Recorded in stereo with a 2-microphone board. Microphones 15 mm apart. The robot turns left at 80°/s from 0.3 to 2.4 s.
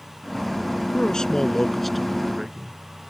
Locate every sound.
0.9 s a man speaking: 85° left; by 2.8 s 30° right